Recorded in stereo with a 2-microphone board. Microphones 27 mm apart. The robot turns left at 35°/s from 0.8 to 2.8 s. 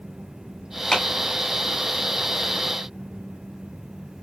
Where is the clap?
20° left (ahead or behind), 1.7 m; by 1.1 s 25° left (ahead or behind), 1.7 m.